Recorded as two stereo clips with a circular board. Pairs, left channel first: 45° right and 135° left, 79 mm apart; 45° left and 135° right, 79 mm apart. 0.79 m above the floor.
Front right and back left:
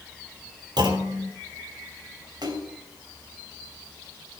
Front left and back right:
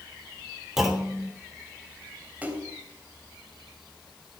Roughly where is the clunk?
Behind left.